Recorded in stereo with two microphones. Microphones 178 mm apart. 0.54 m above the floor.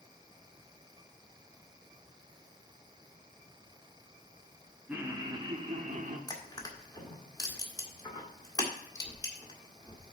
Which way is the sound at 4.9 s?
10° right (ahead or behind).